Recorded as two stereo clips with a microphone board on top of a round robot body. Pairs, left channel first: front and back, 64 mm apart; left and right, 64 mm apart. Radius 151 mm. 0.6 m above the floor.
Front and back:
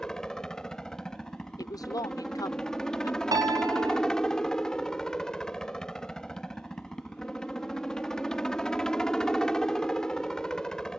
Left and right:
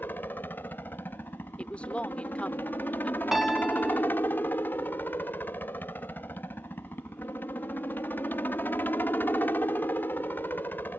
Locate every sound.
0.0 s a helicopter: 70° left
1.6 s a woman speaking: 20° left
3.3 s a piano: 175° right